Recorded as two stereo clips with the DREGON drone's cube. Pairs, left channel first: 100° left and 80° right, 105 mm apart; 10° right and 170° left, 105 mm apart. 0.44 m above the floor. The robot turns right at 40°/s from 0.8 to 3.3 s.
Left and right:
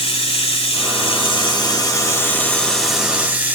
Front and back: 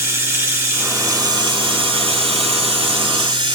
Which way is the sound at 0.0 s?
105° left.